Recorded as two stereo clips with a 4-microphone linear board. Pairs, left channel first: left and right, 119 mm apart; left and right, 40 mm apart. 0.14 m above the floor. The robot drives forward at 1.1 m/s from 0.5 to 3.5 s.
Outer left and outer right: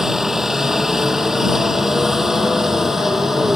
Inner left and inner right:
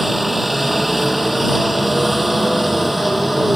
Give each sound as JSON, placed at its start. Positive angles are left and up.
{"t": 0.0, "sound": "a helicopter", "side_deg": -5}